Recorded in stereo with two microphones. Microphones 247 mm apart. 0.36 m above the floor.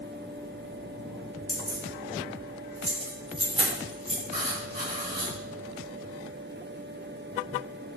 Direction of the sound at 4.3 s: 40° right (ahead or behind).